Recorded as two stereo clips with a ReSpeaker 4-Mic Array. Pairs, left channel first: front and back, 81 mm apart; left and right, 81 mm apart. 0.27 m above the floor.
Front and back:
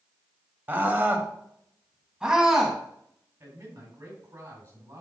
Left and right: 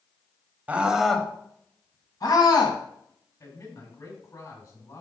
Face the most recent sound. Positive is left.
turn(degrees=125)